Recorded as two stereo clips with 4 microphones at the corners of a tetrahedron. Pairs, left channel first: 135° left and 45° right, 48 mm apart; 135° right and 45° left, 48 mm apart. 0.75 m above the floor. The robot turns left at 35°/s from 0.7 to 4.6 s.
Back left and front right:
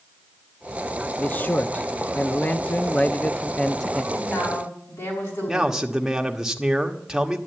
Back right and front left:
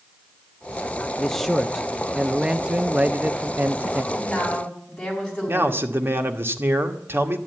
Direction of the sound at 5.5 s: 30° left.